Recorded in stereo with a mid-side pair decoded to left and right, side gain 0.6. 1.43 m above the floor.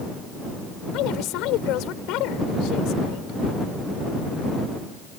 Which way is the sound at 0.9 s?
70° left.